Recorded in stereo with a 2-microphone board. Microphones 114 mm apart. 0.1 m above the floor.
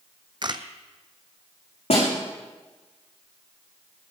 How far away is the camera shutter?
About 0.9 m.